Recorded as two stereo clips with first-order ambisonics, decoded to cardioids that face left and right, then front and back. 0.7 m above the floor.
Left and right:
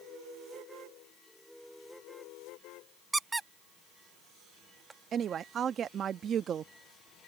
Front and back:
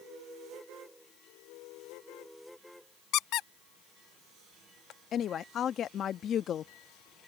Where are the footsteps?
I don't hear footsteps.